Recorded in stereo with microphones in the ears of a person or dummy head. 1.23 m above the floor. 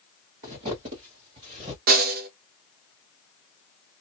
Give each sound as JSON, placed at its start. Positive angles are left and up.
{"t": 0.4, "sound": "footsteps", "side_deg": -35, "distance_m": 1.4}
{"t": 1.9, "sound": "a snare drum", "side_deg": -50, "distance_m": 0.6}